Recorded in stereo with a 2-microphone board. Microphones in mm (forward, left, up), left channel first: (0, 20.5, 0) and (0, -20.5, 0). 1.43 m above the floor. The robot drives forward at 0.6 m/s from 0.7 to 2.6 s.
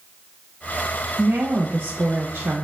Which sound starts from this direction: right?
A woman speaking, at 1.2 s.